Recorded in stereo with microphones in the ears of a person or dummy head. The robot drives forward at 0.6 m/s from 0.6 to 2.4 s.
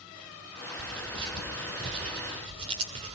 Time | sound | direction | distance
0.8 | tearing paper | 25° right (ahead or behind) | 4 m